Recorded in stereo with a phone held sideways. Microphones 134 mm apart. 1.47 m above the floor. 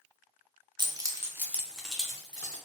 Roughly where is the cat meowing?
I don't hear a cat meowing.